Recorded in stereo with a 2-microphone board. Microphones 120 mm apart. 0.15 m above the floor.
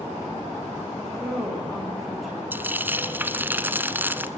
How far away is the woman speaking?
About 9.5 m.